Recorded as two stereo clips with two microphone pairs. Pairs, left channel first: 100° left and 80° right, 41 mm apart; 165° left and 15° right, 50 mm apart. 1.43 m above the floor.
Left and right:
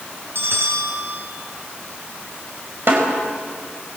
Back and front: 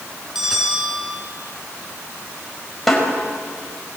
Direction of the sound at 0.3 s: 100° right.